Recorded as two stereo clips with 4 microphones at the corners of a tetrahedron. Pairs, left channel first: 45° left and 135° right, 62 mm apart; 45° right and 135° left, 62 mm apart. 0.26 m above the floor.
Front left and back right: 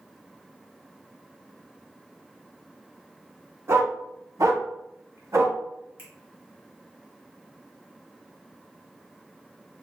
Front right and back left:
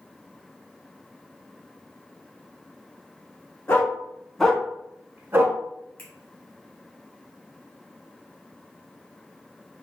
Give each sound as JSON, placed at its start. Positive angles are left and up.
{"t": 3.7, "sound": "a dog barking", "azimuth_deg": -100, "distance_m": 1.0}
{"t": 6.0, "sound": "a finger snap", "azimuth_deg": -100, "distance_m": 1.7}